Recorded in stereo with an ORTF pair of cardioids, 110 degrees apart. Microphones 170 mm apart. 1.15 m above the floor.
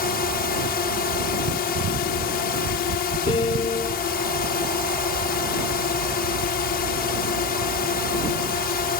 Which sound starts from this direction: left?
A drone, at 0.0 s.